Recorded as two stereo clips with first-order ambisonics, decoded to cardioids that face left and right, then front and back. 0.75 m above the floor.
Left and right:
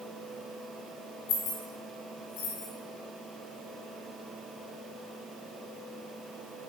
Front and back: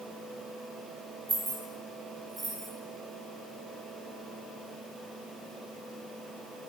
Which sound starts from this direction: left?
Keys jangling, at 1.3 s.